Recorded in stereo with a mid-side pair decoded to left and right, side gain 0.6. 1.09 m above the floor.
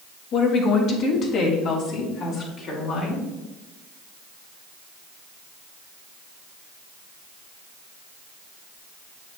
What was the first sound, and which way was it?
A woman speaking, 60° left.